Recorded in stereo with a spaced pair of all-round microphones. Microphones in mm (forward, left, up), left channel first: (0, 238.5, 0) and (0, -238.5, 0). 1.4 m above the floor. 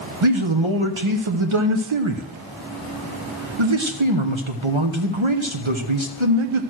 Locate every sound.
0.2 s a man speaking: 75° right (ahead or behind), 1.0 m